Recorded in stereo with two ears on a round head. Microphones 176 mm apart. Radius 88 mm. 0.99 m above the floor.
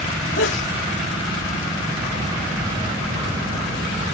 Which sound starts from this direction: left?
A sneeze, at 0.4 s.